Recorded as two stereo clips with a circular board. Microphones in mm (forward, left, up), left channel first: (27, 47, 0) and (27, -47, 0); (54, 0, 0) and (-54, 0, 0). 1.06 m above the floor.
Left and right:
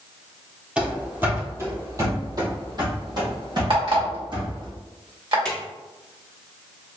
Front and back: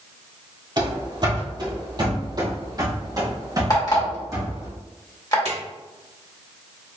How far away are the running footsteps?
About 1.4 m.